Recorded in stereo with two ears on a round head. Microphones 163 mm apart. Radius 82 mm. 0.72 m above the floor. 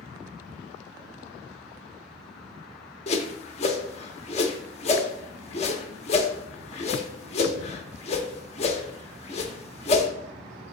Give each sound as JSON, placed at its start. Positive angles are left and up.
{"t": 3.1, "sound": "a whoosh", "side_deg": 35, "distance_m": 0.9}